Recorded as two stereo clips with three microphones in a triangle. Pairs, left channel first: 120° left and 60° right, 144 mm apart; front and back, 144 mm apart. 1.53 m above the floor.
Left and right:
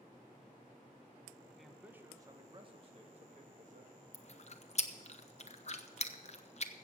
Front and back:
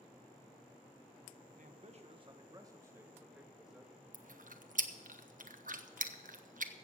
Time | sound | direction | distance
1.6 | a man speaking | 150° right | 1.1 m
4.1 | chewing | 160° left | 0.8 m